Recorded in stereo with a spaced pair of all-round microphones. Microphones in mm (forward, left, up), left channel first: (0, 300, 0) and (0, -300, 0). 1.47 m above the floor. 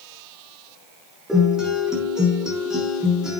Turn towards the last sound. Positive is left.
turn(degrees=0)  # may be behind; listen again after turning